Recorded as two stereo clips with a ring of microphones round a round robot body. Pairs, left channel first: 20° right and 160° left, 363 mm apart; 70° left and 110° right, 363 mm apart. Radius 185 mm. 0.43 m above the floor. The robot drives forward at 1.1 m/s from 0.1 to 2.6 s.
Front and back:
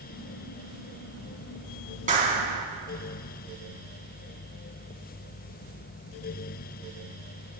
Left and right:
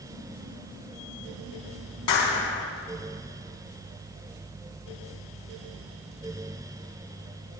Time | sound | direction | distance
2.1 | a clap | 90° left | 4 m